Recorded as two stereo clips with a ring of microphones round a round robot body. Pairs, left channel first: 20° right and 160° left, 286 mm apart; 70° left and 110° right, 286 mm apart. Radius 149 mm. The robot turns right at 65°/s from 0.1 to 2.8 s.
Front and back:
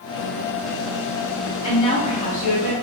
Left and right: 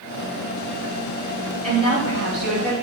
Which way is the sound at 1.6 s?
75° right.